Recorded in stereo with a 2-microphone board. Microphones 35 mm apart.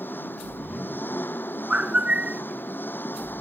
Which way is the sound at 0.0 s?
75° left (ahead or behind).